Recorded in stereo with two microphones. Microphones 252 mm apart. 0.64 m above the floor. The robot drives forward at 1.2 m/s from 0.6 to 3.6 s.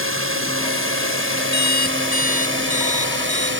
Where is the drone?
55° right (ahead or behind); by 3.6 s 50° right (ahead or behind).